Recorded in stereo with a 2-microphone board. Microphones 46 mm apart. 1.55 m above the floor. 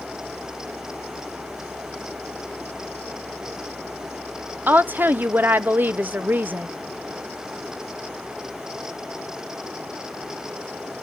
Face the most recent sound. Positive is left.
turn(degrees=-45)  # may be behind; listen again after turning